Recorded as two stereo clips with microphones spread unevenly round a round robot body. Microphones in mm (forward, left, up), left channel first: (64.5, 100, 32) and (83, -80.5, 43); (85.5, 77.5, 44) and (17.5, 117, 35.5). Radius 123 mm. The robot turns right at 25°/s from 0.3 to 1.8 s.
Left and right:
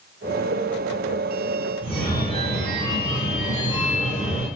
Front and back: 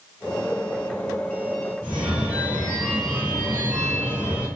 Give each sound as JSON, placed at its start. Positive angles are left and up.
{"t": 1.8, "sound": "a phone ringing", "azimuth_deg": -105, "distance_m": 2.5}